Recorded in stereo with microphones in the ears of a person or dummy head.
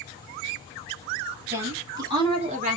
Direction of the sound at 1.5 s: 15° right (ahead or behind).